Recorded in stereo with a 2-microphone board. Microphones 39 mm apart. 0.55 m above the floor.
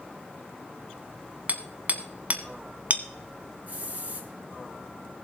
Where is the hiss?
45° right (ahead or behind), 2.5 m.